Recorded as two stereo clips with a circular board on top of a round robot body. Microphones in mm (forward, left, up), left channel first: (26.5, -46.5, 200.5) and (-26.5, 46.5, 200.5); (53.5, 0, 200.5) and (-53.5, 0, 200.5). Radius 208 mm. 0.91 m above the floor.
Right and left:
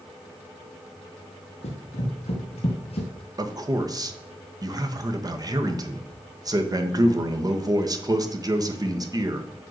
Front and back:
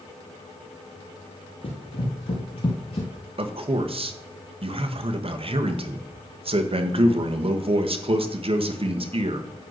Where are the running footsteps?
35° right, 2 m; by 3.1 s 30° right, 1.3 m.